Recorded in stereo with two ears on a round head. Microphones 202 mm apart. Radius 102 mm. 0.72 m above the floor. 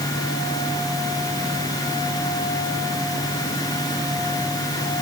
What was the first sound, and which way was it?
Only background noise.